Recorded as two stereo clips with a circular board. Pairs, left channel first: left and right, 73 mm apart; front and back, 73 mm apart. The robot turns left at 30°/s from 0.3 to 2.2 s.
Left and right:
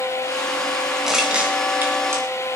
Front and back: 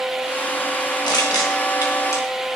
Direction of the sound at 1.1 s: 5° right.